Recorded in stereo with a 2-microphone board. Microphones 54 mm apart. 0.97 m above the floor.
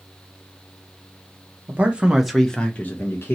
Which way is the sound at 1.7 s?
30° right (ahead or behind).